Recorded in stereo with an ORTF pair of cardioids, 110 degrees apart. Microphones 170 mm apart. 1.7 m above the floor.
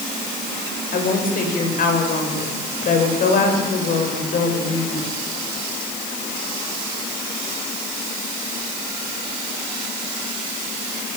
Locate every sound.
0.9 s a woman speaking: 55° left, 8.5 m